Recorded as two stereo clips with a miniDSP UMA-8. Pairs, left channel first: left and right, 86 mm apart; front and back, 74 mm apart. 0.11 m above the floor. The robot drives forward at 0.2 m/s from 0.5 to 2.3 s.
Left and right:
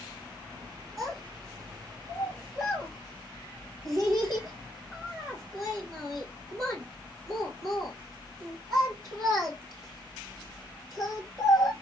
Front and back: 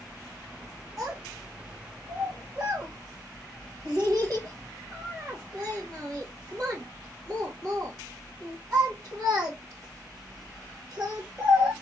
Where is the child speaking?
140° right, 2.5 m; by 11.7 s 145° right, 2.5 m.